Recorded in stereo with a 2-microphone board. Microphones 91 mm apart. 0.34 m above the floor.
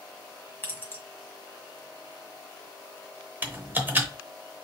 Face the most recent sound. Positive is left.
turn(degrees=-20)  # may be behind; listen again after turning